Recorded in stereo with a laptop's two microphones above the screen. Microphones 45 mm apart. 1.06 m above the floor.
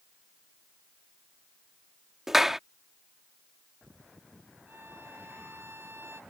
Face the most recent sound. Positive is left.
turn(degrees=-55)  # may be behind; listen again after turning